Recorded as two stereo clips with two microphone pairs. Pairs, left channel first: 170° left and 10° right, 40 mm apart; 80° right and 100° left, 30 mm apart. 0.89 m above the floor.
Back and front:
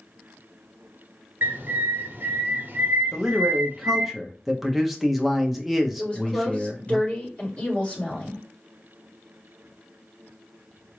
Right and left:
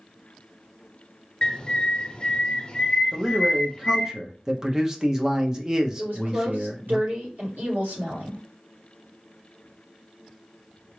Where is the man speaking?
70° left, 0.6 m.